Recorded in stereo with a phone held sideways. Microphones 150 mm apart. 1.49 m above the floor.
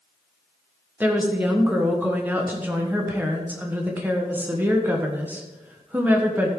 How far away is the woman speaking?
About 1.3 m.